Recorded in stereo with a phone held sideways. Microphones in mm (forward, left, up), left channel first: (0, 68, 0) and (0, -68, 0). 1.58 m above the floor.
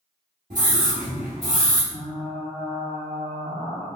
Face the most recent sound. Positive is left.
turn(degrees=-45)  # may be behind; listen again after turning